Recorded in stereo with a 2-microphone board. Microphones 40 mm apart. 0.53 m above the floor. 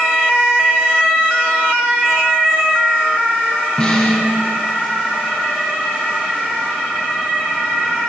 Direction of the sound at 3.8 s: 15° left (ahead or behind).